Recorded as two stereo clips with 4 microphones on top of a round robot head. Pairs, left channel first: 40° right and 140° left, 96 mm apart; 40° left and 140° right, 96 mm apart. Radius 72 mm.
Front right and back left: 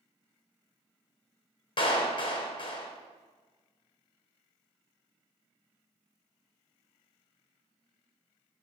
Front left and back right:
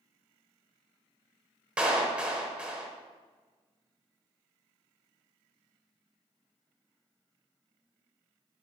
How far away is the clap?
About 1.6 m.